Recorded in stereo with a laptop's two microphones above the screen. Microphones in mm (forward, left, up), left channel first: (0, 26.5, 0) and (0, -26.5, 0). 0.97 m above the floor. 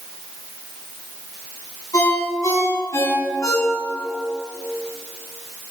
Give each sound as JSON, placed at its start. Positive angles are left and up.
{"t": 1.9, "sound": "a ringtone", "side_deg": 80, "distance_m": 4.5}